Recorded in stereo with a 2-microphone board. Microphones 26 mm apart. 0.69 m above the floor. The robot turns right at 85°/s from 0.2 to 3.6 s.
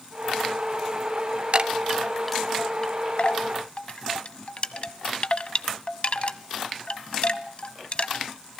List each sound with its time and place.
1.5 s a chime: 45° right (ahead or behind), 0.8 m; by 8.2 s 50° left (ahead or behind), 0.8 m